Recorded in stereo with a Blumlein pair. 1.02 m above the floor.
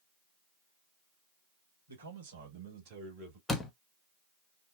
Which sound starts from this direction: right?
A man speaking, at 1.9 s.